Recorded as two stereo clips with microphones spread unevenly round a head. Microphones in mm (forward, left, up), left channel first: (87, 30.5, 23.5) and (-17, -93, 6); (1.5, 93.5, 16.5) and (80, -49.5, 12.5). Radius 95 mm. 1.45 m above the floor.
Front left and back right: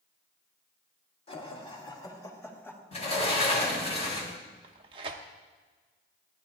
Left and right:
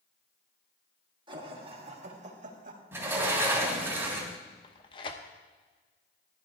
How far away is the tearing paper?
About 0.7 m.